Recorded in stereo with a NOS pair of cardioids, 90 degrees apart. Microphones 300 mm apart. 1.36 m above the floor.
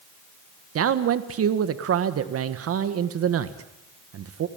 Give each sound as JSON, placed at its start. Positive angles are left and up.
{"t": 0.8, "sound": "a man speaking", "azimuth_deg": -60, "distance_m": 1.6}